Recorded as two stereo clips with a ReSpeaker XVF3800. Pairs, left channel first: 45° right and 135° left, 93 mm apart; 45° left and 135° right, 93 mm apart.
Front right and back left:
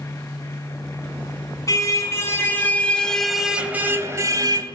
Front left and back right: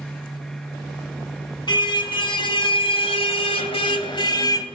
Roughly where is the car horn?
Ahead.